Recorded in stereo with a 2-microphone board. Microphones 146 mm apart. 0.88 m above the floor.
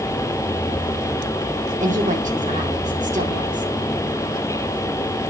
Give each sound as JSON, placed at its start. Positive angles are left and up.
{"t": 1.8, "sound": "a woman speaking", "side_deg": -55, "distance_m": 2.0}